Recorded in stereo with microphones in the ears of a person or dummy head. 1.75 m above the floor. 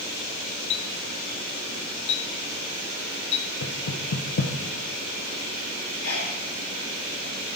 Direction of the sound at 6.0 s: 60° left (ahead or behind).